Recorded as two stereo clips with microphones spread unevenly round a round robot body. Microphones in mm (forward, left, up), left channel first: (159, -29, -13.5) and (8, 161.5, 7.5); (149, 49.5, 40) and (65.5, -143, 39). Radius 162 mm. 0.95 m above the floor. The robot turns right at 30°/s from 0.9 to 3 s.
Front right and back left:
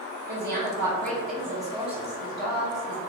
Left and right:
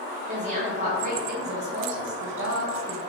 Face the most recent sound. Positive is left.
turn(degrees=-105)